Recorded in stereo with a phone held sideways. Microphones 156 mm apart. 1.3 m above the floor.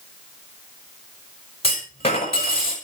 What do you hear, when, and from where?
1.6 s a clunk: 45° left (ahead or behind), 6.5 m